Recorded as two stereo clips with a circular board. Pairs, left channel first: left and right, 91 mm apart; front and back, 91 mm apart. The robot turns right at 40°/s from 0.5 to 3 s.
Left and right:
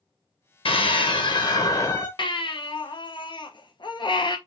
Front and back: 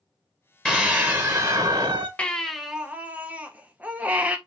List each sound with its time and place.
0.7 s a scream: 85° left, 0.7 m; by 2.1 s 140° left, 0.7 m
2.2 s a baby crying: 75° left, 0.7 m; by 4.4 s 110° left, 0.7 m